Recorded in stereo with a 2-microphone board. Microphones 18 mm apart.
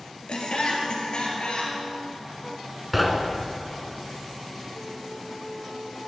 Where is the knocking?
5° right (ahead or behind), 1.2 m.